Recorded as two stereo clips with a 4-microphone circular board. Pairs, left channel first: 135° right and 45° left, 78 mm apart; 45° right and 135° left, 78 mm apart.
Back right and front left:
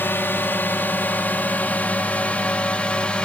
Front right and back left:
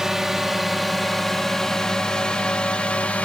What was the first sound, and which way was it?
A drone, 145° right.